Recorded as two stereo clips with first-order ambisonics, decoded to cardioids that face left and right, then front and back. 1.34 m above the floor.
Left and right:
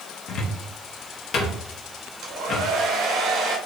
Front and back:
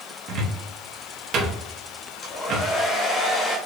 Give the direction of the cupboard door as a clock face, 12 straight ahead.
7 o'clock.